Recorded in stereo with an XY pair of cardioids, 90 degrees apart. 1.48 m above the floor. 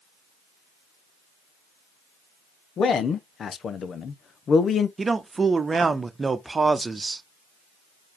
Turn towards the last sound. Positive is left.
turn(degrees=-35)